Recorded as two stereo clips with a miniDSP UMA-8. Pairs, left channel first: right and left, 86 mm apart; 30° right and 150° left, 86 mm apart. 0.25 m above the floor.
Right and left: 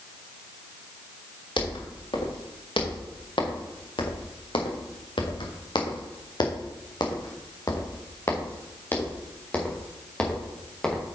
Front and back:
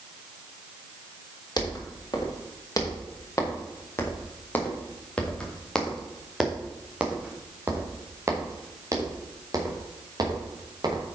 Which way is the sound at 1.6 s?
70° right.